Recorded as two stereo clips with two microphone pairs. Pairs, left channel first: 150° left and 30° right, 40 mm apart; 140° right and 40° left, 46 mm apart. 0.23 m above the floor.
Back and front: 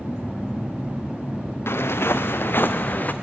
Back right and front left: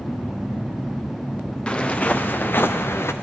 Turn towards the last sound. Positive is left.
turn(degrees=-165)